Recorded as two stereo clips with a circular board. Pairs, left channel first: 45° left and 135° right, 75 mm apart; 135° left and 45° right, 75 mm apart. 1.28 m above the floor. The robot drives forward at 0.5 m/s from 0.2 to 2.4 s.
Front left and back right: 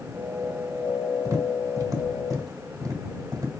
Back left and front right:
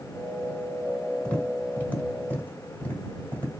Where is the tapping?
155° right, 1.4 m; by 3.5 s 165° right, 1.9 m.